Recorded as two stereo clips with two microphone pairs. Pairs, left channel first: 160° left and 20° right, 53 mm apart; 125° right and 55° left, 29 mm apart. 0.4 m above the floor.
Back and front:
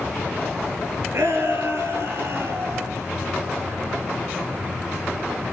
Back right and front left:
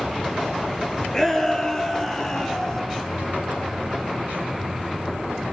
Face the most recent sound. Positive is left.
turn(degrees=-65)